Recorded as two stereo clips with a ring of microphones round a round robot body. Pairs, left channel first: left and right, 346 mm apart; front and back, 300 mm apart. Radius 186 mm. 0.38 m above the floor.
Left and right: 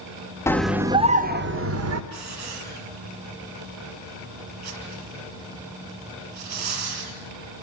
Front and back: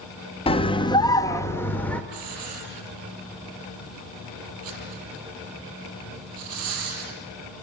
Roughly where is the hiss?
Behind right.